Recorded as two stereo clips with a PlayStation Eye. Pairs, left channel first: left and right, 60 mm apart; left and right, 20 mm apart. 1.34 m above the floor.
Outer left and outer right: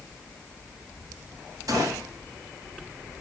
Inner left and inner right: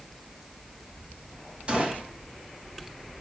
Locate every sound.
1.7 s a gunshot: 80° right, 2.5 m